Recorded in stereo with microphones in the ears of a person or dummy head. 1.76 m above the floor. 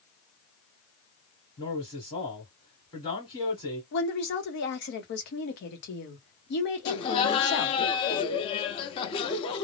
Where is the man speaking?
30° left (ahead or behind), 1.3 m.